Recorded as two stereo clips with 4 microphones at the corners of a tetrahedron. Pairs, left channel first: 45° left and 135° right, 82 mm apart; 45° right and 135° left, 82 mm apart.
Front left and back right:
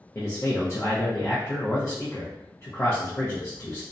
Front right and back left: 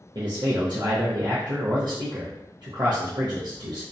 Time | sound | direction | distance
0.1 | a man speaking | 100° left | 0.6 m